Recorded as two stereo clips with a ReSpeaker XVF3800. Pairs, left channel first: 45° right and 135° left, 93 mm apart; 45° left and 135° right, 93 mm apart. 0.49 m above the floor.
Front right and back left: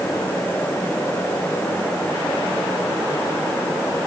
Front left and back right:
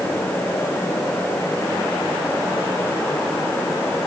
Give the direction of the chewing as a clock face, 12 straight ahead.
I don't hear chewing.